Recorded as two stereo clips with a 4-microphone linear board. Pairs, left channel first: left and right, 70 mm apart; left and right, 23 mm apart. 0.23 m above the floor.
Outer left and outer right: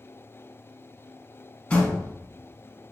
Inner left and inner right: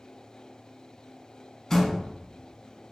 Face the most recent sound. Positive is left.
turn(degrees=20)  # may be behind; listen again after turning